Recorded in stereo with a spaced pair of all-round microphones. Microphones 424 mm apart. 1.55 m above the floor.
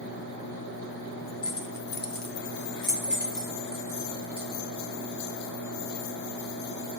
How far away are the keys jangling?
About 0.5 m.